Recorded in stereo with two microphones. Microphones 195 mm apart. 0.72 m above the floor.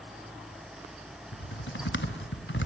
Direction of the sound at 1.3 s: 75° left (ahead or behind).